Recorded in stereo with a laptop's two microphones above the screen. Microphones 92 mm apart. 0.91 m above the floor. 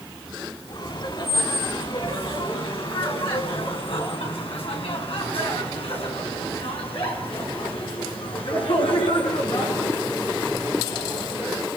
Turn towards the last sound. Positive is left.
turn(degrees=70)  # may be behind; listen again after turning